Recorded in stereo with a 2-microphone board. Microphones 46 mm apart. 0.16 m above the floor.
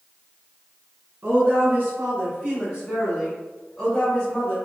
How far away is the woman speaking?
About 1.9 m.